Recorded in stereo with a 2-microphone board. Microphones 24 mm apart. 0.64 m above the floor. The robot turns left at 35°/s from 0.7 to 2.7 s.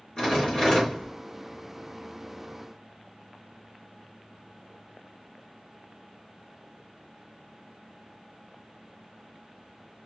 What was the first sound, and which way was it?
A rattle, 40° left (ahead or behind).